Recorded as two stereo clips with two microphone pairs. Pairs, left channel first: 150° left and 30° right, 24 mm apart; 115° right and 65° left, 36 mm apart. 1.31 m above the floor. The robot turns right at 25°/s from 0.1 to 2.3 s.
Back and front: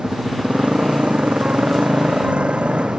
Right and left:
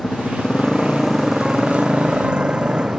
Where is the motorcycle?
50° right; by 3.0 s straight ahead.